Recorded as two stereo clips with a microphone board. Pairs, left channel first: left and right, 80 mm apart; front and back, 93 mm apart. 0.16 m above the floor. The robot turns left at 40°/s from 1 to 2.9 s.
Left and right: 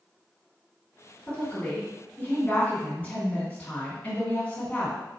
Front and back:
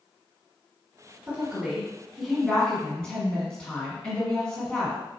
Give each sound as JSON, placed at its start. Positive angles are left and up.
{"t": 1.3, "sound": "a woman speaking", "azimuth_deg": 130, "distance_m": 1.6}